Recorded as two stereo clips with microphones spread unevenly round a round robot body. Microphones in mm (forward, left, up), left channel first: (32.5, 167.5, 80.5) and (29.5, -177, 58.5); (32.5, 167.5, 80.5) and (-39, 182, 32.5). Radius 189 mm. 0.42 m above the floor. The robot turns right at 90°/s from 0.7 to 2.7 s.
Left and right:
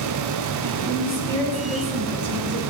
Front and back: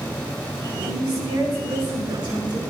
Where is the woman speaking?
95° left, 9 m; by 2.6 s 105° right, 9 m.